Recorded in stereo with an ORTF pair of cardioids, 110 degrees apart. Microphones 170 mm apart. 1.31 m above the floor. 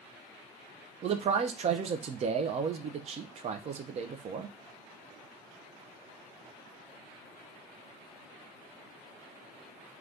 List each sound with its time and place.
1.0 s a man speaking: 45° right, 0.5 m